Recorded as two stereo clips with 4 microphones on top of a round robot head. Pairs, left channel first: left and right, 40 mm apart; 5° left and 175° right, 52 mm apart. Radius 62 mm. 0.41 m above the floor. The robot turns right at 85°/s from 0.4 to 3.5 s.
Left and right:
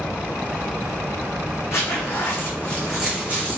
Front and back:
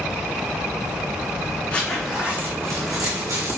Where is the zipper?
70° left, 4.5 m; by 3.6 s 135° right, 4.5 m.